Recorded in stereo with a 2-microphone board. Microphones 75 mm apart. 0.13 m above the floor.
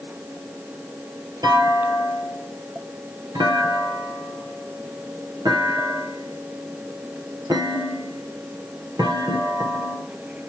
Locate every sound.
1.4 s a clunk: 60° right (ahead or behind), 1.7 m